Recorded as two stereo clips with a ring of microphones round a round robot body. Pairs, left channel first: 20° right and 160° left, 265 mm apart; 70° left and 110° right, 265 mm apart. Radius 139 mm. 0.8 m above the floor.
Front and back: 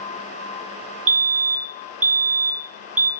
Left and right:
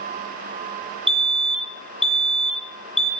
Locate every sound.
1.1 s a fire alarm: 155° left, 2.5 m